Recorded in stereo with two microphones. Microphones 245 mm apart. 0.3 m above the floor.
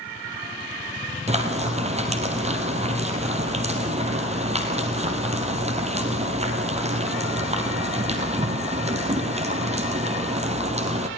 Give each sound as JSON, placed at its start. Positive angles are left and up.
{"t": 1.3, "sound": "frying", "side_deg": -25, "distance_m": 3.0}